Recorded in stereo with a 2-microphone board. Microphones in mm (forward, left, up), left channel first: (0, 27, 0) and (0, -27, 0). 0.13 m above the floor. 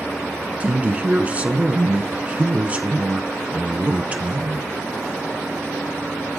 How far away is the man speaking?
About 1.2 m.